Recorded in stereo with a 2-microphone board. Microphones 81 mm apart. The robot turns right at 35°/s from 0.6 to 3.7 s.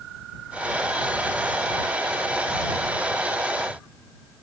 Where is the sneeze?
No sneeze in this recording.